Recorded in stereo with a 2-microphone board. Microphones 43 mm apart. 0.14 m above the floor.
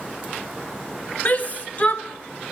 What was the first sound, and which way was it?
A shout, 40° left (ahead or behind).